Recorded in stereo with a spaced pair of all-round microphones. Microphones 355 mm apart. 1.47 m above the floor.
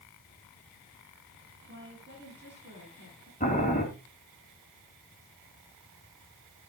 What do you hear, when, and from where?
1.7 s a woman speaking: 30° right (ahead or behind), 8.5 m
3.4 s boiling: 25° left (ahead or behind), 3 m